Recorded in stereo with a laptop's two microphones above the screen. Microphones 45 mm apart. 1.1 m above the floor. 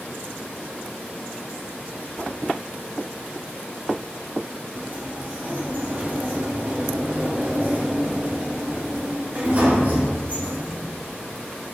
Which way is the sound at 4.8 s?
45° right (ahead or behind).